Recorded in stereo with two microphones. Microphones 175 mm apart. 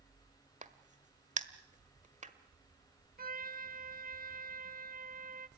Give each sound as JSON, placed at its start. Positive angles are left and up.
{"t": 0.6, "sound": "a crack", "side_deg": -40, "distance_m": 1.5}
{"t": 3.2, "sound": "a trumpet", "side_deg": -50, "distance_m": 0.8}